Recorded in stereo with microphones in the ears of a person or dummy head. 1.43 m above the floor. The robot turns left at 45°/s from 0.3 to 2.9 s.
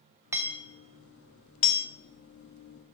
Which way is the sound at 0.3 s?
10° right (ahead or behind).